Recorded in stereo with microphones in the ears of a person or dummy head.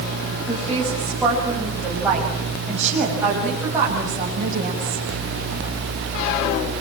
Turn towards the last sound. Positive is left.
turn(degrees=-25)  # may be behind; listen again after turning